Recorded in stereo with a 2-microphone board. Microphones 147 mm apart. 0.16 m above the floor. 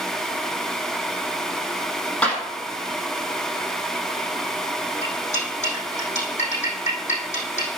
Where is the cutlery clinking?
50° left (ahead or behind), 4.5 m.